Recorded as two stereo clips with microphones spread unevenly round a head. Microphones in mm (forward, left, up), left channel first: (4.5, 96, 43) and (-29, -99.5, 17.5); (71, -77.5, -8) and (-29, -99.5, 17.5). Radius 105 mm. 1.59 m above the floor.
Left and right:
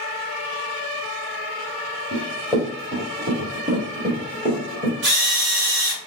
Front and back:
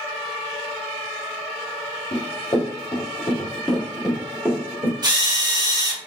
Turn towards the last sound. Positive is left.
turn(degrees=-130)